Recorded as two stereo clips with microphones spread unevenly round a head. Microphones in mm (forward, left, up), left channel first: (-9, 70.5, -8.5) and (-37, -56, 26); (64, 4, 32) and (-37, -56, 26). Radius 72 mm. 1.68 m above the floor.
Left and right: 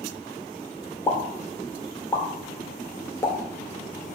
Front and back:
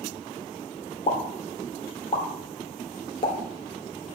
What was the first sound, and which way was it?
A pop, 5° right.